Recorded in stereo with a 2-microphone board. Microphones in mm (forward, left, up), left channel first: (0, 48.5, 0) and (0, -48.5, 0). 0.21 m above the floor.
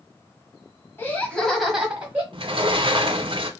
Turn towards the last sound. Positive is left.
turn(degrees=-55)  # may be behind; listen again after turning